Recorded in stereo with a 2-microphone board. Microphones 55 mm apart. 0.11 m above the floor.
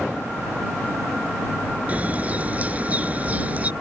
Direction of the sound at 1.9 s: 25° right (ahead or behind).